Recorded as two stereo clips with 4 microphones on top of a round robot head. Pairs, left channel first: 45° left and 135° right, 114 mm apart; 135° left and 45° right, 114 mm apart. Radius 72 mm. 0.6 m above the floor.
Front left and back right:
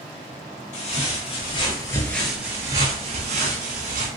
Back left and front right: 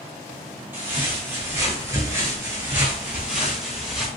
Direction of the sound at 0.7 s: 25° left.